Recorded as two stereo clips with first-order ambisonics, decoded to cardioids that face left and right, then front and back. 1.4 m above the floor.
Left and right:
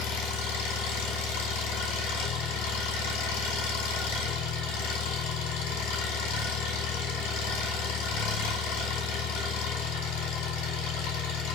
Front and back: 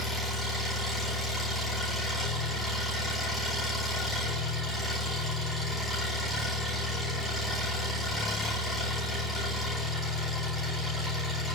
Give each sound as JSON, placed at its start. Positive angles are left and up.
{"t": 0.0, "sound": "an engine running", "azimuth_deg": 95, "distance_m": 5.0}